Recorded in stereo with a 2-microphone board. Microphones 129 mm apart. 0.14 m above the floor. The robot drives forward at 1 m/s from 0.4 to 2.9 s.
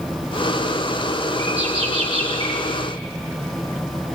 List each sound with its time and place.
1.4 s a bird: 55° right (ahead or behind), 7 m; by 2.6 s 45° right (ahead or behind), 7.5 m